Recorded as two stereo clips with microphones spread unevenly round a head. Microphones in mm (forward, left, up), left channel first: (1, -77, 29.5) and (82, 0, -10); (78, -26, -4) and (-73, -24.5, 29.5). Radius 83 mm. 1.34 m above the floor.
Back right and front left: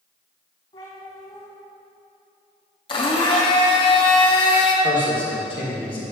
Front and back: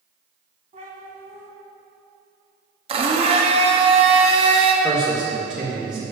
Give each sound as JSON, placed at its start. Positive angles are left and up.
{"t": 0.7, "sound": "a cat meowing", "azimuth_deg": -155, "distance_m": 2.0}
{"t": 2.9, "sound": "a blender", "azimuth_deg": -145, "distance_m": 1.1}
{"t": 4.8, "sound": "a man speaking", "azimuth_deg": -115, "distance_m": 2.0}